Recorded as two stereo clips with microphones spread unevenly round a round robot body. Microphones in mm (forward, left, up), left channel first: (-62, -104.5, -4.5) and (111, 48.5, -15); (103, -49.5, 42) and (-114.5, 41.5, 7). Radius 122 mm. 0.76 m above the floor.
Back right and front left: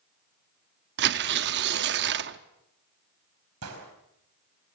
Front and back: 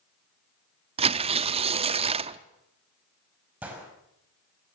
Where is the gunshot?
75° left, 4.5 m.